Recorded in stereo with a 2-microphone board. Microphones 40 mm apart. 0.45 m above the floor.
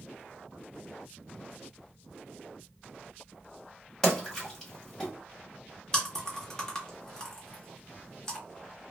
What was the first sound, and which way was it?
A splash, 15° left (ahead or behind).